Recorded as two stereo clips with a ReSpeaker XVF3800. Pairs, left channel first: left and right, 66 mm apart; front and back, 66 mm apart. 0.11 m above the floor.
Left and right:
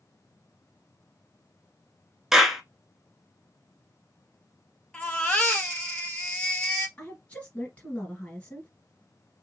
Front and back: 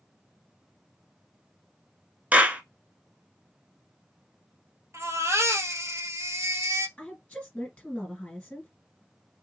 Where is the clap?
165° right, 0.9 m.